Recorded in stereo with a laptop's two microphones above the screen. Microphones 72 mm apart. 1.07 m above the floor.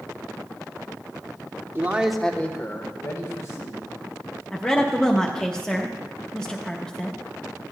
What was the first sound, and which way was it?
A man speaking, 30° right (ahead or behind).